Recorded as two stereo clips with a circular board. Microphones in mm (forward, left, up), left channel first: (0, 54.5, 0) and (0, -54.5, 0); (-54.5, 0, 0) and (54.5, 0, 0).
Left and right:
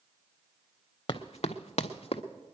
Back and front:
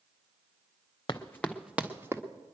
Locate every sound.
1.1 s running footsteps: 130° left, 0.9 m; by 2.2 s 65° left, 1.5 m